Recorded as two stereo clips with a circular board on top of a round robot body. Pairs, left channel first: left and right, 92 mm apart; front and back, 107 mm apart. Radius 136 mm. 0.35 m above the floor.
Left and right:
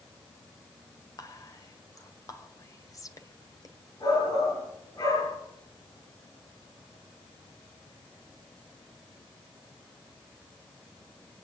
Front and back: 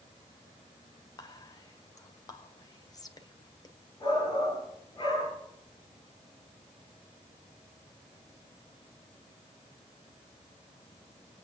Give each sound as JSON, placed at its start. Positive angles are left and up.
{"t": 1.2, "sound": "whispering", "azimuth_deg": 45, "distance_m": 2.0}
{"t": 4.0, "sound": "a shout", "azimuth_deg": 55, "distance_m": 8.0}